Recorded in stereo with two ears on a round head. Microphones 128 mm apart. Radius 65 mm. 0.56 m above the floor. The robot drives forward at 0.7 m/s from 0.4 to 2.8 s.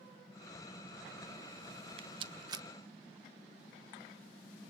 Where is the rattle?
40° right (ahead or behind), 0.6 m; by 2.7 s 25° right (ahead or behind), 0.9 m.